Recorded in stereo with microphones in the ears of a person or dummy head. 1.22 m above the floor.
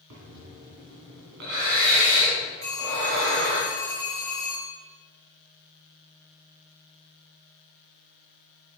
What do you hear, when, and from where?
0.1 s breathing: 60° right (ahead or behind), 2.5 m
2.6 s a phone ringing: 35° right (ahead or behind), 5 m